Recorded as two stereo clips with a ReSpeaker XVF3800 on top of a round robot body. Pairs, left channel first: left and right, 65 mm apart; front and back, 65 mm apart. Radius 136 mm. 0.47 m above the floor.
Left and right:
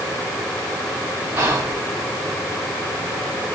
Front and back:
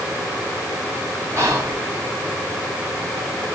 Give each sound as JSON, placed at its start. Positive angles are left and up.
{"t": 1.4, "sound": "whispering", "azimuth_deg": -145, "distance_m": 1.4}